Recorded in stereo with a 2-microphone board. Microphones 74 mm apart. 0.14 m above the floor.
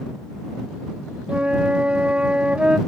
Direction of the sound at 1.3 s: 15° right (ahead or behind).